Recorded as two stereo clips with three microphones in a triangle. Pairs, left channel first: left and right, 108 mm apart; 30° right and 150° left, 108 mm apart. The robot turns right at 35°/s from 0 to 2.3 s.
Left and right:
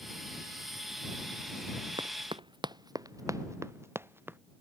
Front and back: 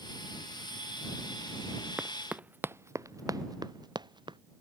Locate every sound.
2.0 s running footsteps: 130° right; by 4.4 s 160° right